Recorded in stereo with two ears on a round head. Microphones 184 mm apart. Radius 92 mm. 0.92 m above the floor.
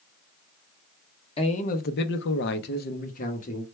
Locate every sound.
1.4 s a man speaking: 25° left (ahead or behind), 0.7 m; by 3.6 s 35° left (ahead or behind), 1.2 m